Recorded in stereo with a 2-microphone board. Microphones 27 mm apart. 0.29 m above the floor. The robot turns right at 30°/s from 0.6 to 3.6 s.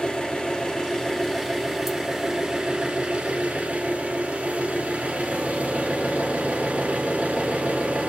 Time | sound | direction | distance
0.0 | an engine running | 145° left | 1.7 m